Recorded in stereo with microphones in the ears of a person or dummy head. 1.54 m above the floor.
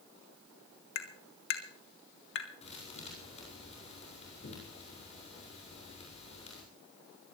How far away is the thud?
About 6.5 m.